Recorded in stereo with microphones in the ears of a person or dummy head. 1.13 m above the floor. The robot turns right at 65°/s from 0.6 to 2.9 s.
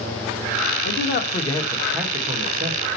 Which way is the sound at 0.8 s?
110° left.